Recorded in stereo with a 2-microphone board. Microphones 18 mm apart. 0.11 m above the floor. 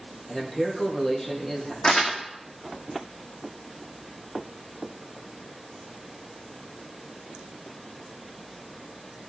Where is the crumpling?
80° left, 2.5 m.